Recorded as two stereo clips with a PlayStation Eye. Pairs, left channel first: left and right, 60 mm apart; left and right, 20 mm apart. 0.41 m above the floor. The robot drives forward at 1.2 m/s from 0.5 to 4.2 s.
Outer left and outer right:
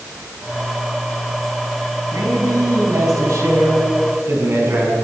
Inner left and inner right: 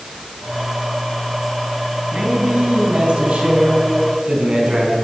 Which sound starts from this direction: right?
A man speaking, at 2.1 s.